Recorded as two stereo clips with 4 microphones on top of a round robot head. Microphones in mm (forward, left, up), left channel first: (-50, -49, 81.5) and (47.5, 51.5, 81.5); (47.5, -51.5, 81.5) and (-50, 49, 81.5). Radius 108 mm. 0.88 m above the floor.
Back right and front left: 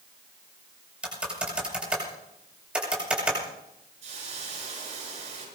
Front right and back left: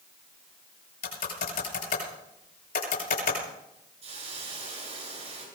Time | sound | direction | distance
1.0 | typing on a keyboard | 35° right | 7.5 m
4.0 | a hiss | 90° left | 8 m